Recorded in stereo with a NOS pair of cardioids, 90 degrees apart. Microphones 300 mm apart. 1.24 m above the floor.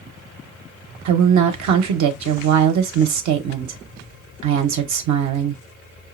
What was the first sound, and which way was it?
A woman speaking, 70° right.